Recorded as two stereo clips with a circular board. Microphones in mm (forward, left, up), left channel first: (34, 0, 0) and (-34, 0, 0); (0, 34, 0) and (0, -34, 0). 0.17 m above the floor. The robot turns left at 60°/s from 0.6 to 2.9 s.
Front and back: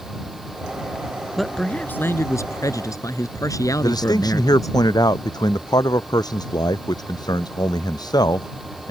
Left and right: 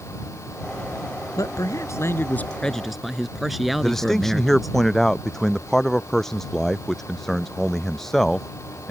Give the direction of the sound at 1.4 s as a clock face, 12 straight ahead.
9 o'clock.